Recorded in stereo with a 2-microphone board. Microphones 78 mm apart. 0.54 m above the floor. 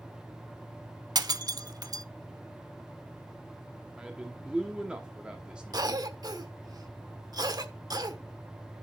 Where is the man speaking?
10° right (ahead or behind), 1.1 m.